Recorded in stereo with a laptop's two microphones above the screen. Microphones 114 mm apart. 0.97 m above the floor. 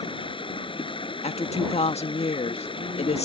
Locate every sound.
0.0 s running water: 50° left (ahead or behind)
1.2 s a woman speaking: 65° left (ahead or behind)